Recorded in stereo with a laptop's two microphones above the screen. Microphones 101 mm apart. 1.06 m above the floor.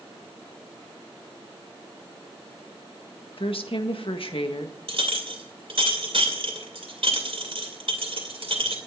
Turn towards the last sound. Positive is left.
turn(degrees=-65)  # may be behind; listen again after turning